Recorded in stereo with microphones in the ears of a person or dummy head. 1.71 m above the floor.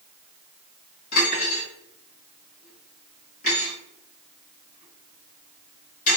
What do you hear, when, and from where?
1.1 s cutlery clinking: 45° left (ahead or behind), 1.5 m